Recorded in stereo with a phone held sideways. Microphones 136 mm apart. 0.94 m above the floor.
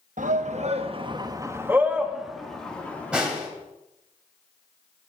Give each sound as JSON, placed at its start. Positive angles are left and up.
{"t": 0.2, "sound": "a shout", "side_deg": -70, "distance_m": 1.0}
{"t": 3.1, "sound": "a snare drum", "side_deg": -10, "distance_m": 2.5}